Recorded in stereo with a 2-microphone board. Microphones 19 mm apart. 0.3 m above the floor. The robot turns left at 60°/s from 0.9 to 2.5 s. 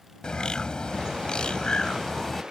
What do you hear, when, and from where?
0.2 s a bird: 115° left; by 2.4 s 20° left